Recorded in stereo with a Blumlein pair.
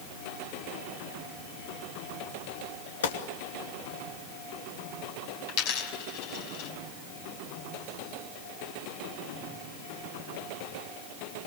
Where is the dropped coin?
45° left, 4.5 m.